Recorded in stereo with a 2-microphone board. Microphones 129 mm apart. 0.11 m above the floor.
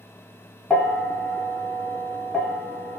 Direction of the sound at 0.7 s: 10° left (ahead or behind).